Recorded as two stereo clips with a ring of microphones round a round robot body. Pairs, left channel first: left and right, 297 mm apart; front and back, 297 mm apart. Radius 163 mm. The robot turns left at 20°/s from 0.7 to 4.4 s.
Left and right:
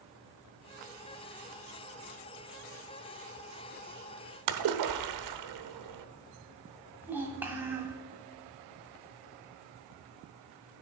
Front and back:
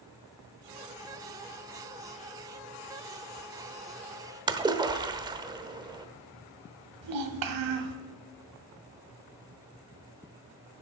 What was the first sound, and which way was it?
A splash, 105° right.